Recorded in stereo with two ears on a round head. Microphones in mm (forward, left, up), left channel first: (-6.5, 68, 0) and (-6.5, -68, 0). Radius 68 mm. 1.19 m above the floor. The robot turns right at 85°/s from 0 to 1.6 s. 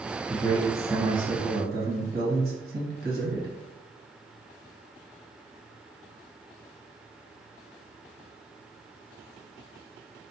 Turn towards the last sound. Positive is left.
turn(degrees=-95)